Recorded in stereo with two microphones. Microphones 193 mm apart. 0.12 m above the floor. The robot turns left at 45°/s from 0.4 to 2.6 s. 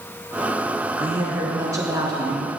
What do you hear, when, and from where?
1.0 s a woman speaking: 10° right (ahead or behind), 1.1 m; by 2.5 s 20° right (ahead or behind), 1.1 m